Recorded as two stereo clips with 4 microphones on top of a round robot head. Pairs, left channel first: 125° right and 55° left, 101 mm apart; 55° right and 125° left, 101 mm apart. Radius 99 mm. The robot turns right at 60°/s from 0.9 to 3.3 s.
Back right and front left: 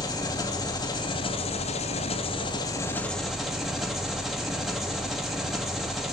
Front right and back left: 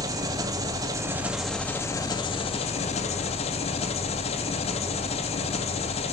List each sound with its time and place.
0.0 s an engine running: 175° right, 2 m; by 6.1 s 35° right, 2 m